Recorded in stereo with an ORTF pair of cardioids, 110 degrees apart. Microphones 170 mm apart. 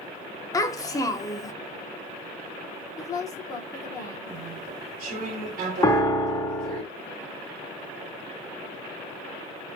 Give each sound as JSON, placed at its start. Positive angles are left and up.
{"t": 0.5, "sound": "a child speaking", "azimuth_deg": 20, "distance_m": 0.7}
{"t": 3.0, "sound": "a woman speaking", "azimuth_deg": 20, "distance_m": 0.8}
{"t": 4.3, "sound": "chewing", "azimuth_deg": -65, "distance_m": 1.3}
{"t": 5.8, "sound": "a piano", "azimuth_deg": 20, "distance_m": 0.6}